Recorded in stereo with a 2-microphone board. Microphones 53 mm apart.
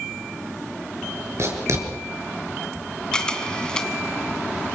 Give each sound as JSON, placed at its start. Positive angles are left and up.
{"t": 1.4, "sound": "writing", "side_deg": -60, "distance_m": 4.5}
{"t": 3.1, "sound": "a camera shutter", "side_deg": 15, "distance_m": 1.8}